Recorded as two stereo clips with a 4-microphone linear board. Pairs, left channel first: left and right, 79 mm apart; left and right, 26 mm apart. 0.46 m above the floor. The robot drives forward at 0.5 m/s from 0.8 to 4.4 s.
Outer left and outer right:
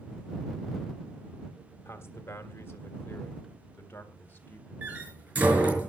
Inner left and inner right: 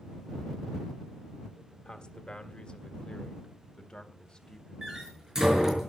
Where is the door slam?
25° right (ahead or behind), 5.5 m.